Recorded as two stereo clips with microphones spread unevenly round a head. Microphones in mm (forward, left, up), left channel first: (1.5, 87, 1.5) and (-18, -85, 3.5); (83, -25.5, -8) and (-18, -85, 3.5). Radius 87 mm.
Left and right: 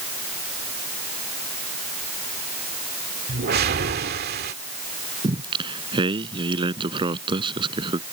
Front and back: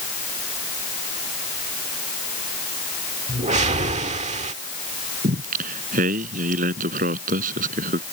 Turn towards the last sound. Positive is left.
turn(degrees=-160)